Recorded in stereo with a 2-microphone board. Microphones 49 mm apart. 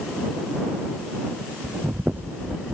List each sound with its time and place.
1.6 s breathing: 35° right (ahead or behind)